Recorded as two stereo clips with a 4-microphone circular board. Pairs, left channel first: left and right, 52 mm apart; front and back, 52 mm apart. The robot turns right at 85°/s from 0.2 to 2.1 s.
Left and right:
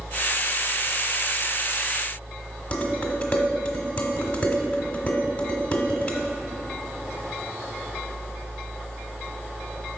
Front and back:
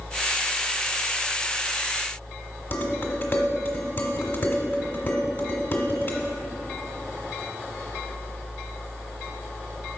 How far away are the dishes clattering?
About 1.2 m.